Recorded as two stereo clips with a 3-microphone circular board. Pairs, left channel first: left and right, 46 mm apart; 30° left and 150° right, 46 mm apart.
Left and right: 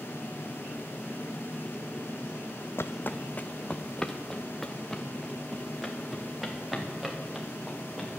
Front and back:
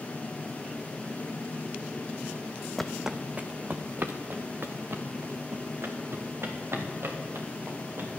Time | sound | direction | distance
2.8 | footsteps | 115° left | 0.6 m